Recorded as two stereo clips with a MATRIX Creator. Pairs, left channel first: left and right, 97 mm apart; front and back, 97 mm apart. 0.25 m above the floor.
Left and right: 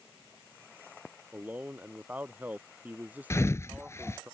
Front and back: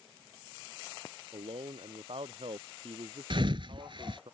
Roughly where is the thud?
Behind left.